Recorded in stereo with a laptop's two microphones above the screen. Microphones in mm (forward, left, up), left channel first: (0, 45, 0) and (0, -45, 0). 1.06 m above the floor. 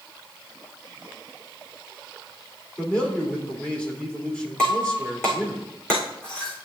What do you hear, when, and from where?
2.8 s a man speaking: 10° left (ahead or behind), 3 m
4.6 s breaking glass: 10° left (ahead or behind), 4 m